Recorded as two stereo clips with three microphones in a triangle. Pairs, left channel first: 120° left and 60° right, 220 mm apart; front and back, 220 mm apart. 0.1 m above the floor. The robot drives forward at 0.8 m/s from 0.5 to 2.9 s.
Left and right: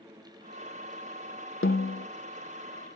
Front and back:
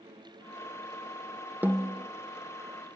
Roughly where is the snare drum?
Left.